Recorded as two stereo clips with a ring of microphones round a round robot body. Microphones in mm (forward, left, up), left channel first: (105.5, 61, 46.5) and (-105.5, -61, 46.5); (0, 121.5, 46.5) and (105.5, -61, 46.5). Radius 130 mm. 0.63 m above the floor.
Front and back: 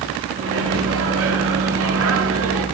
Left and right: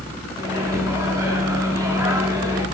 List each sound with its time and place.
0.4 s a microwave: 135° right, 1.3 m